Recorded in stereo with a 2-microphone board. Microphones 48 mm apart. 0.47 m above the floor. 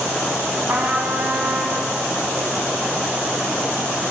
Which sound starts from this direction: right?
A trumpet, at 0.7 s.